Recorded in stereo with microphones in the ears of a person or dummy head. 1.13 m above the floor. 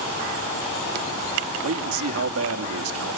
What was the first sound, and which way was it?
A man speaking, 75° right (ahead or behind).